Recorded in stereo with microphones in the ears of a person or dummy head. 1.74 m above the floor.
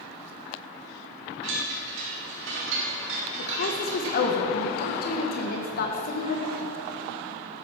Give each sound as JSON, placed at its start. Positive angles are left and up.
{"t": 1.4, "sound": "a chime", "side_deg": -75, "distance_m": 3.5}
{"t": 3.4, "sound": "a woman speaking", "side_deg": 55, "distance_m": 1.8}